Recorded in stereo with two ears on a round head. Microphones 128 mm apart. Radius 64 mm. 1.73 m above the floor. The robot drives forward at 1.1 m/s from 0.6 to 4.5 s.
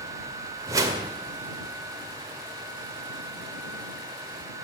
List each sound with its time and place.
0.7 s a whoosh: 25° right (ahead or behind), 1.7 m